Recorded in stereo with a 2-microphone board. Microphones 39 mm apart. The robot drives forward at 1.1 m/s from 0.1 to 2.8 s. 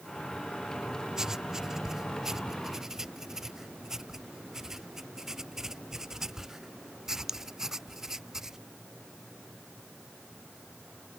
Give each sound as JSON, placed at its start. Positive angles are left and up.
{"t": 1.2, "sound": "writing", "side_deg": -10}